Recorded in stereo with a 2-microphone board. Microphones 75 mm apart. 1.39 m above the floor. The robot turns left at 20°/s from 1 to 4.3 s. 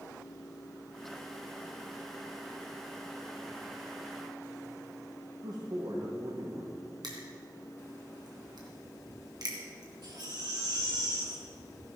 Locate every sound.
5.4 s a man speaking: 65° right (ahead or behind), 1.7 m
7.0 s crushing: 65° right (ahead or behind), 3 m
10.0 s a baby crying: 70° right (ahead or behind), 3 m